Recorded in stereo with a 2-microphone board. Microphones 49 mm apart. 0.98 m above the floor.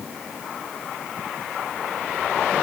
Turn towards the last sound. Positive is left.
No sound to turn to.